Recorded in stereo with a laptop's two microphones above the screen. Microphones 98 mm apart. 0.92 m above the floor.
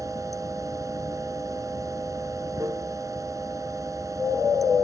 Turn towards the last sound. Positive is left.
turn(degrees=-35)  # may be behind; listen again after turning